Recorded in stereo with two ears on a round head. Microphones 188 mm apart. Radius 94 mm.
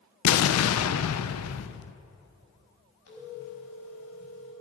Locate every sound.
0.2 s an explosion: 75° left (ahead or behind), 0.5 m
3.1 s a phone ringing: 85° left, 5 m